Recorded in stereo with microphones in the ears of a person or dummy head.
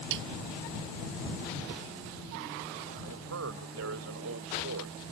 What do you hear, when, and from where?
0.1 s a snare drum: 65° right (ahead or behind)
3.0 s a man speaking: 85° right